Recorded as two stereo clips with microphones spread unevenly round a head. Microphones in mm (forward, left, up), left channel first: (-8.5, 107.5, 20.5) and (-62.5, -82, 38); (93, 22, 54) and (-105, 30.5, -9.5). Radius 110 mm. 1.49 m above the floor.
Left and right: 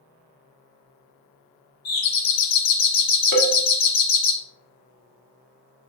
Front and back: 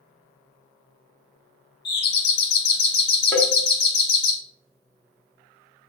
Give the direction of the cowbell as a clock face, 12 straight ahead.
3 o'clock.